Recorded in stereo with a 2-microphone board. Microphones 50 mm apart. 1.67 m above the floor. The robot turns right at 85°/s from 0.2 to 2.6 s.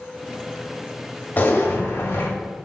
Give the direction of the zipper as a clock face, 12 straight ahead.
11 o'clock.